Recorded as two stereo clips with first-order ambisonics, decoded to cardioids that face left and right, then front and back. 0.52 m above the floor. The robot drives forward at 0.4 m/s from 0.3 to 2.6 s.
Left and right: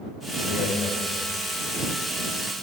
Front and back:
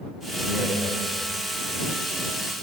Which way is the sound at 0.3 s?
105° left.